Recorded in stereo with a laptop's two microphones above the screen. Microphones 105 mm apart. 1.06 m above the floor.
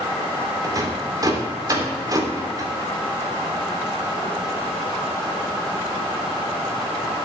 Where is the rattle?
35° right (ahead or behind), 3.5 m.